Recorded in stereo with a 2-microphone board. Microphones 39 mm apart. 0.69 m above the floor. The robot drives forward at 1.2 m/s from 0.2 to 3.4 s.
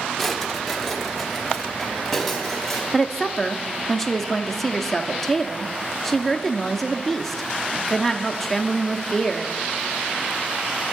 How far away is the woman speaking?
About 0.5 m.